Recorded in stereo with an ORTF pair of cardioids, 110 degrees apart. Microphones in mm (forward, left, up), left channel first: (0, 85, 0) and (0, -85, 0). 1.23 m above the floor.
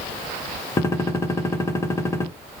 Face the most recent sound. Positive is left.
turn(degrees=15)